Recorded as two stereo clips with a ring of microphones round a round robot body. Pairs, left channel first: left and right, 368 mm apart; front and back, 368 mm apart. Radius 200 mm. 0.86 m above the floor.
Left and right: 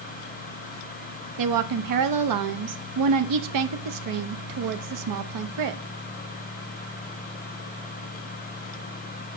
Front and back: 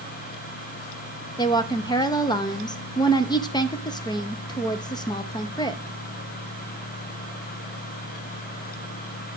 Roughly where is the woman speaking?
Right.